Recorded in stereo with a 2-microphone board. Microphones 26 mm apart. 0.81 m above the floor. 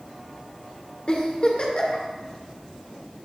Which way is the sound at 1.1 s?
45° left (ahead or behind).